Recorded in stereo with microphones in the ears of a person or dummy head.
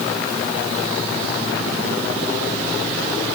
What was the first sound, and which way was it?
Only background noise.